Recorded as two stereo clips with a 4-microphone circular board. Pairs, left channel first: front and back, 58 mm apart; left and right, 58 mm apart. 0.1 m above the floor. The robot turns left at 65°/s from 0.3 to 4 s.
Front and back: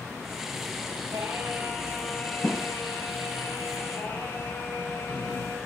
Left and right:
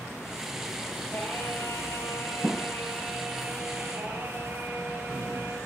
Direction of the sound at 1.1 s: 145° left.